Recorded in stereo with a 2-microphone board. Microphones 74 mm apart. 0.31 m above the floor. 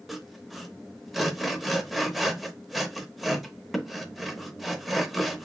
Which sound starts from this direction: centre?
Sawing, at 0.1 s.